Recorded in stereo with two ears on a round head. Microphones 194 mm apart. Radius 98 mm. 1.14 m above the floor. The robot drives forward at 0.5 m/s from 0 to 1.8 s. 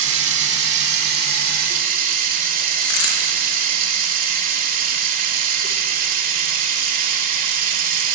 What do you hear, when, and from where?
0.0 s running water: 65° right (ahead or behind), 1.4 m; by 8.2 s 45° right (ahead or behind), 1.9 m
2.8 s a dropped coin: 70° left (ahead or behind), 3.5 m